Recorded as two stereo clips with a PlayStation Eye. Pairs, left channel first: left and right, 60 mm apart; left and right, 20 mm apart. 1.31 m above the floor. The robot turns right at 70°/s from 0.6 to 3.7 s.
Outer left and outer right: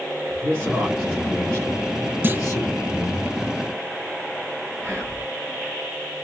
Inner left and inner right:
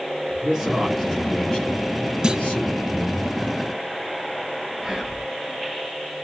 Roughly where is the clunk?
Right.